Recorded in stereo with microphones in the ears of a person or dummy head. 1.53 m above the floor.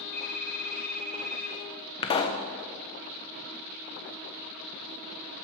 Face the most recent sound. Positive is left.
turn(degrees=35)  # may be behind; listen again after turning